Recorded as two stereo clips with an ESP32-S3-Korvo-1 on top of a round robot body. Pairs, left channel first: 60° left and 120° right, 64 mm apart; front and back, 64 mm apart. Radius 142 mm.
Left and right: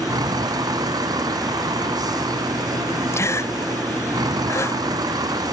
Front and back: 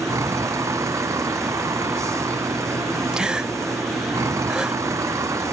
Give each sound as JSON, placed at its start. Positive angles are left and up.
{"t": 0.0, "sound": "a vehicle", "azimuth_deg": -140}
{"t": 3.1, "sound": "a gasp", "azimuth_deg": 100}